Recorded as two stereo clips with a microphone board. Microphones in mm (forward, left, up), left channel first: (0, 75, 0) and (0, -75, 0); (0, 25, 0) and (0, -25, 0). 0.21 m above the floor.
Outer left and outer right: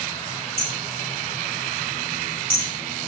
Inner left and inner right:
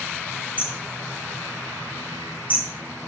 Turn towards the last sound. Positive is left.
turn(degrees=-40)  # may be behind; listen again after turning